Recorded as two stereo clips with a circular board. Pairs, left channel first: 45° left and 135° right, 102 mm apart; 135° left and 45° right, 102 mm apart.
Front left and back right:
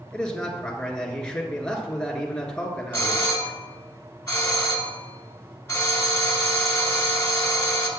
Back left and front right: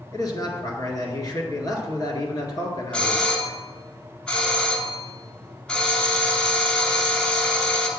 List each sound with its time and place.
0.1 s a man speaking: 125° left, 1.6 m
2.9 s a doorbell: 70° left, 1.7 m